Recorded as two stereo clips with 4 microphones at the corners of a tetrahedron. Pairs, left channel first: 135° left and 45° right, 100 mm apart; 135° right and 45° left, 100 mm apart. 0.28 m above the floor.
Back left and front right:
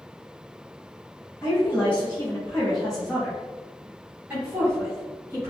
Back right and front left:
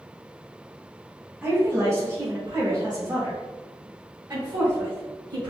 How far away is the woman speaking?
About 1.5 m.